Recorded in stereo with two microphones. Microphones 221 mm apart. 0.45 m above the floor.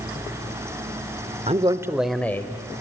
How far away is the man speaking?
About 1.1 m.